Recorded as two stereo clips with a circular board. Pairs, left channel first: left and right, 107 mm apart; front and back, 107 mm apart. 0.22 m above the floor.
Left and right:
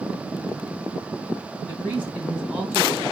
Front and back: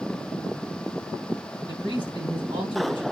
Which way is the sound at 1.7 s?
170° right.